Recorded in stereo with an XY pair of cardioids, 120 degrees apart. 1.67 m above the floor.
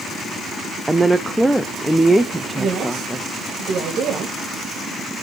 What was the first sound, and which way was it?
A woman speaking, 5° right.